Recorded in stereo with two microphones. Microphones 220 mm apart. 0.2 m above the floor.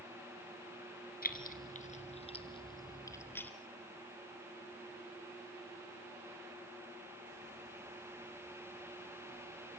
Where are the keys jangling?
45° left (ahead or behind), 2 m; by 3.5 s 10° left (ahead or behind), 1.9 m.